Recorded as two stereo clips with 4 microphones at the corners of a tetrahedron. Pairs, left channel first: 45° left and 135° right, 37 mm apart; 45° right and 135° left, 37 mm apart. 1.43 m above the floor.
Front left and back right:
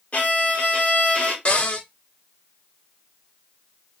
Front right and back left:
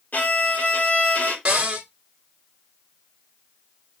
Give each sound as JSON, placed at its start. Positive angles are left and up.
{"t": 0.1, "sound": "a violin", "azimuth_deg": 0, "distance_m": 2.5}
{"t": 1.4, "sound": "a cupboard door", "azimuth_deg": 90, "distance_m": 1.5}